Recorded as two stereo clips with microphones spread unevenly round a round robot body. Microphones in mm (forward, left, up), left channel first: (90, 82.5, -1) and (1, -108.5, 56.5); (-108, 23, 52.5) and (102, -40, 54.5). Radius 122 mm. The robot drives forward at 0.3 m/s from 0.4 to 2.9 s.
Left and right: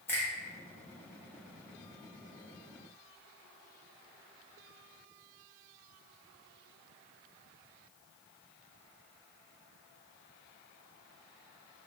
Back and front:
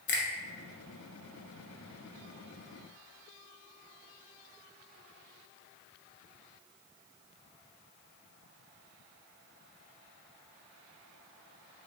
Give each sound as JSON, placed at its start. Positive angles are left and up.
{"t": 0.1, "sound": "a finger snap", "azimuth_deg": 135, "distance_m": 0.8}